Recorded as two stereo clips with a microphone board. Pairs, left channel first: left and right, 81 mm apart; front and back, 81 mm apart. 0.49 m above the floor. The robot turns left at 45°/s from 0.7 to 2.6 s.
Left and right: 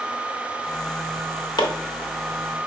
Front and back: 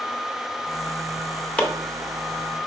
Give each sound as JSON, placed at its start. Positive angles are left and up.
{"t": 1.6, "sound": "chopping", "azimuth_deg": 75, "distance_m": 1.0}